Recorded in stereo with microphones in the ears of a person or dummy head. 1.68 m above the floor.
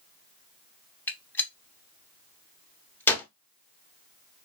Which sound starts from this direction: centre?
A gunshot, at 1.1 s.